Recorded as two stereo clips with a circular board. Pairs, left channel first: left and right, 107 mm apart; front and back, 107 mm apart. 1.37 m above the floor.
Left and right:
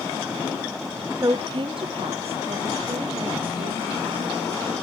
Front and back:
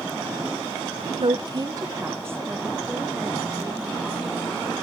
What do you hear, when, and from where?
1.2 s a woman speaking: 150° right, 0.6 m; by 4.7 s 95° right, 2.5 m